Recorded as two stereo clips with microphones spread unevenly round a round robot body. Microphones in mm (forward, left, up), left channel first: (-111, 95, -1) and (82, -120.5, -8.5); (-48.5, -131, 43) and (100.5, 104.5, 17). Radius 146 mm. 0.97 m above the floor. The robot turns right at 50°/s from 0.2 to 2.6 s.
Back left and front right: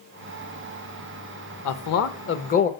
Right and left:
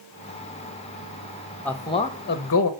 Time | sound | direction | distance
1.6 | a man speaking | 150° left | 0.9 m